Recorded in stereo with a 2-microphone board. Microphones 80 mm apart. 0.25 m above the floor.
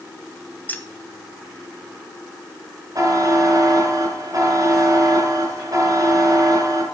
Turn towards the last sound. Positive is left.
turn(degrees=-50)  # may be behind; listen again after turning